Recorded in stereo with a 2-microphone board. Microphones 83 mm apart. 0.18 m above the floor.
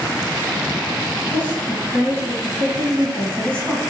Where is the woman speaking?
15° left (ahead or behind), 1.1 m.